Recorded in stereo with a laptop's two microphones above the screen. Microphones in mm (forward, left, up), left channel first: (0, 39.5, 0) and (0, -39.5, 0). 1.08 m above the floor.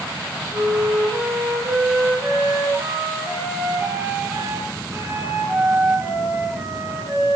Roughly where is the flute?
Right.